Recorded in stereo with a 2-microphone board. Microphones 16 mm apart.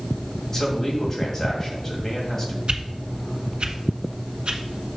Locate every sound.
0.5 s a man speaking: 20° left (ahead or behind), 2.5 m
2.7 s a whoosh: 85° right, 1.0 m